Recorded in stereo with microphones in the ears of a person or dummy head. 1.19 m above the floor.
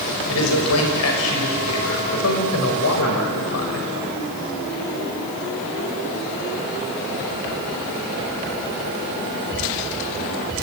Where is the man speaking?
85° left, 6.5 m.